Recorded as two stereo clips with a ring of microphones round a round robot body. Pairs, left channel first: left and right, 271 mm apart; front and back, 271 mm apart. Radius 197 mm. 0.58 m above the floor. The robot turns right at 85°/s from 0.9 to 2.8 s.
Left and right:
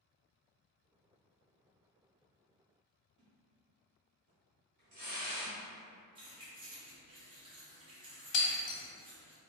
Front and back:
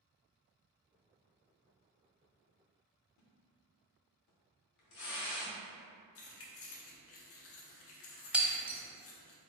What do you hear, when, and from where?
3.2 s a splash: 20° right, 0.7 m
6.2 s keys jangling: 20° right, 0.5 m
8.3 s breaking glass: 95° left, 1.0 m